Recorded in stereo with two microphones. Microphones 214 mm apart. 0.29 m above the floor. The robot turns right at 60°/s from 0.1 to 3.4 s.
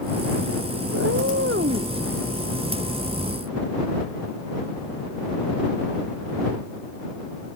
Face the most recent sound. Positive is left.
turn(degrees=50)